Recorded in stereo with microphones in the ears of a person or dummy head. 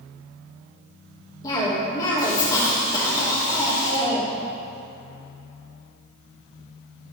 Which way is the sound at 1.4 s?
25° left (ahead or behind).